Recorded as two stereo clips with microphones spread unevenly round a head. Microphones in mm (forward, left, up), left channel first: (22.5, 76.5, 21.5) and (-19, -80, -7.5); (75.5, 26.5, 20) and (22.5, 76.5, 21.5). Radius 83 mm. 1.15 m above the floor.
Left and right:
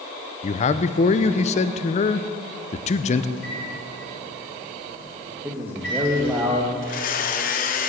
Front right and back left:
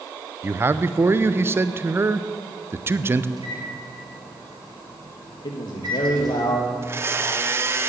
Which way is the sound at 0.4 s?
105° left.